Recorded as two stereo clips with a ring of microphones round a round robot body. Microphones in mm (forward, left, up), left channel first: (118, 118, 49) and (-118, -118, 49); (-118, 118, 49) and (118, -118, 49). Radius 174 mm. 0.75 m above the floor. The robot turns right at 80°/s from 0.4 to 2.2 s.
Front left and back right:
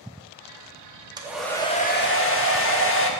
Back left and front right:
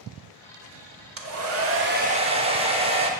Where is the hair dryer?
65° right, 1.2 m; by 3.1 s 20° left, 1.2 m.